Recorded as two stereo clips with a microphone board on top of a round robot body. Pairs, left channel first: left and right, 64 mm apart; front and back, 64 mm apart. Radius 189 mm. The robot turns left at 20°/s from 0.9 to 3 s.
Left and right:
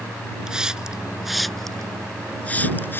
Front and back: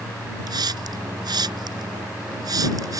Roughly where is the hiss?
Behind.